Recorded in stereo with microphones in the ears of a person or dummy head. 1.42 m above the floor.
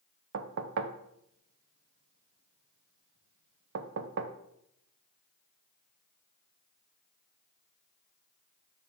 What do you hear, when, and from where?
0.3 s knocking: 65° right (ahead or behind), 0.5 m